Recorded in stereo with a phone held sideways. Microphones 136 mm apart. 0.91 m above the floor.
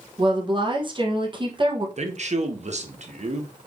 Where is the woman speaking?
35° right (ahead or behind), 0.7 m.